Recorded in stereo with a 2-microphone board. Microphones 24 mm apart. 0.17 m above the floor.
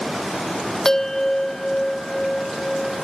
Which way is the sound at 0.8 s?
15° left (ahead or behind).